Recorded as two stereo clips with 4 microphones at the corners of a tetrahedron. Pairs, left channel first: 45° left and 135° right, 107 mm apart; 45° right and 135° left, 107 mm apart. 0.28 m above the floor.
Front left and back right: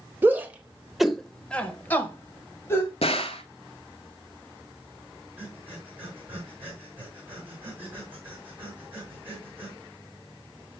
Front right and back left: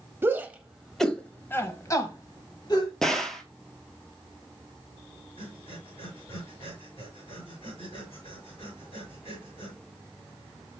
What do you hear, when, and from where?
0.2 s a shout: 175° left, 0.9 m; by 2.9 s 15° right, 1.5 m
3.0 s a gunshot: 40° left, 0.9 m
5.4 s breathing: 65° right, 4.5 m